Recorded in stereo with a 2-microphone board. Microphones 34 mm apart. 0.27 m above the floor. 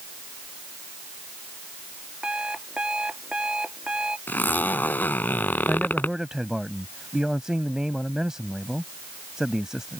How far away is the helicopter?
No helicopter in this recording.